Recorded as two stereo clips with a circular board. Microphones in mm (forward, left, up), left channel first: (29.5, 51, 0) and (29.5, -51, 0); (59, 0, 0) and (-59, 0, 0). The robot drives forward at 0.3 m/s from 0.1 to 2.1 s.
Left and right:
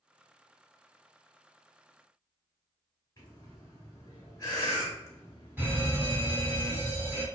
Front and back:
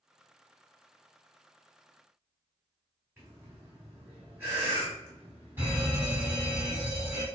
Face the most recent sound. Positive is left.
turn(degrees=-135)